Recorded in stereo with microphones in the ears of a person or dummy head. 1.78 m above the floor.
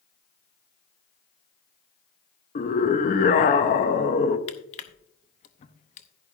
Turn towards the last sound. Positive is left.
turn(degrees=35)  # may be behind; listen again after turning